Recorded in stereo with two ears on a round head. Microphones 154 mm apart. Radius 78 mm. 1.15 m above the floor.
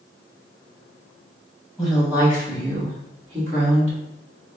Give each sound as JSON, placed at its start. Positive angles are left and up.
{"t": 1.8, "sound": "a woman speaking", "side_deg": 0, "distance_m": 1.4}